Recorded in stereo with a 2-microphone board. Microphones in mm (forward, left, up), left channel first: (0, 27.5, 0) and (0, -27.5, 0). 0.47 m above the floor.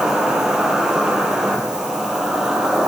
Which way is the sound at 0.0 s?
10° right (ahead or behind).